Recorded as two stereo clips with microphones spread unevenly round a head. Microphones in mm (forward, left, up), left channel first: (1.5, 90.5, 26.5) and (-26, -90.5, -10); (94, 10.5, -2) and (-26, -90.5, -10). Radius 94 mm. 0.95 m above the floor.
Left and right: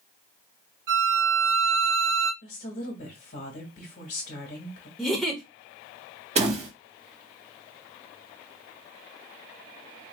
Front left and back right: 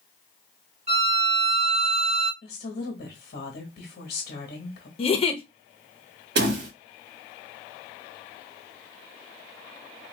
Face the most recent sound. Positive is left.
turn(degrees=-150)